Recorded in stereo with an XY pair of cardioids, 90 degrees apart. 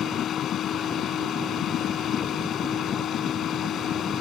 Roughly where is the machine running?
Left.